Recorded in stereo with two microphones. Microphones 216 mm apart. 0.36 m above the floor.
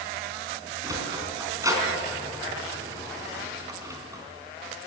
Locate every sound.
0.8 s a sliding door: 15° right (ahead or behind), 4 m